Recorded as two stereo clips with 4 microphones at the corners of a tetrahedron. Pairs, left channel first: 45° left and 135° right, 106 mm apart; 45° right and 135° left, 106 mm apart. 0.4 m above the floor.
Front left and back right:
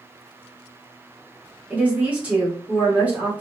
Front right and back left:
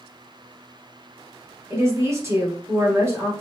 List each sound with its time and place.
1.7 s a woman speaking: 160° left, 1.1 m